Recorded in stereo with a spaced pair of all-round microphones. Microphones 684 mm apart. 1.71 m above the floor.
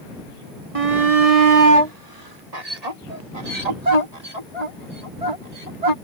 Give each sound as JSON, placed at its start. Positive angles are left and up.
{"t": 0.8, "sound": "a shout", "side_deg": -55}